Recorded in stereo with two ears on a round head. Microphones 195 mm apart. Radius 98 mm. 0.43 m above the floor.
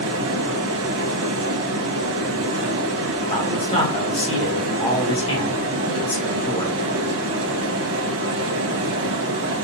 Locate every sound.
0.0 s running water: 60° right (ahead or behind), 1.1 m
3.3 s a man speaking: 25° left (ahead or behind), 1.3 m